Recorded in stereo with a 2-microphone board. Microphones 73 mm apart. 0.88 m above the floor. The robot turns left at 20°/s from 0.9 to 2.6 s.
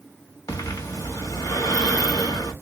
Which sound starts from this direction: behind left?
Breathing, at 0.5 s.